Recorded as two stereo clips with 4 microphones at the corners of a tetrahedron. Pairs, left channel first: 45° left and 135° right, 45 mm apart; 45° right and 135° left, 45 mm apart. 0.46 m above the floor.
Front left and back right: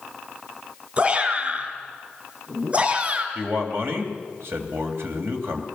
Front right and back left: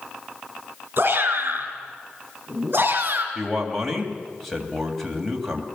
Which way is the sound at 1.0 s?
175° left.